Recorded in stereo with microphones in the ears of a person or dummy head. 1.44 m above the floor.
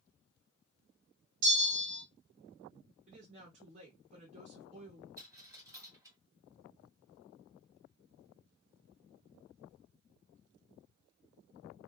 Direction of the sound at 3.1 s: 35° right (ahead or behind).